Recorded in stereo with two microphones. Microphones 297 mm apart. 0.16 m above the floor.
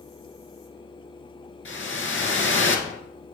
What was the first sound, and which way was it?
A whoosh, 45° left (ahead or behind).